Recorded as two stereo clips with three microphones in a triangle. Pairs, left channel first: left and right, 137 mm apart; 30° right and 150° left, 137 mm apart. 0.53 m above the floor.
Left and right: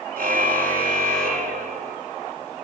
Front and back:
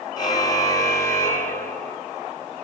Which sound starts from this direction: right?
A car horn, at 0.2 s.